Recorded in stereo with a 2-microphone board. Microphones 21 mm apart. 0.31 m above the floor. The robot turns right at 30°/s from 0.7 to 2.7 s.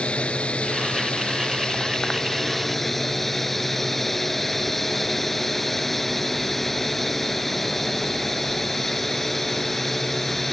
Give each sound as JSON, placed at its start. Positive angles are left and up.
{"t": 0.0, "sound": "a drone", "azimuth_deg": 110}